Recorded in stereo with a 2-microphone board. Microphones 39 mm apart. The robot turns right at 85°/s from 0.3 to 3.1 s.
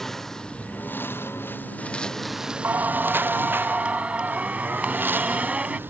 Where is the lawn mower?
10° left (ahead or behind); by 5.9 s 70° right (ahead or behind).